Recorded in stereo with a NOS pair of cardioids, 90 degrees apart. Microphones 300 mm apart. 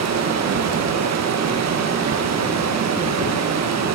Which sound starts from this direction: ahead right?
Running water, at 0.0 s.